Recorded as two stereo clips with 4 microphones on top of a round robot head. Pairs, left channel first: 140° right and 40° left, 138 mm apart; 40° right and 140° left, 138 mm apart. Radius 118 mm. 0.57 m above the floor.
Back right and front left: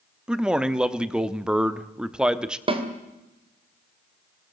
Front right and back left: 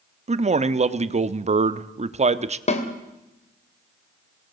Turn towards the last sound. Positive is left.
turn(degrees=-5)